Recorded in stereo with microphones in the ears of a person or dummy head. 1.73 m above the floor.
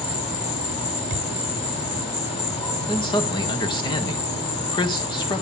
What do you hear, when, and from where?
0.0 s an insect: 30° left (ahead or behind), 4 m
1.1 s a thud: 35° right (ahead or behind), 2 m
2.9 s a man speaking: 25° left (ahead or behind), 1.6 m